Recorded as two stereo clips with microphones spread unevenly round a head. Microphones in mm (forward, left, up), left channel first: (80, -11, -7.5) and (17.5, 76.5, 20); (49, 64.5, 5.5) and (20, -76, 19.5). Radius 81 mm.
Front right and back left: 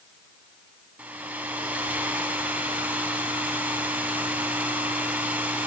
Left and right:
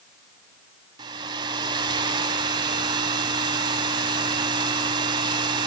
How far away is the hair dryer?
About 1.6 m.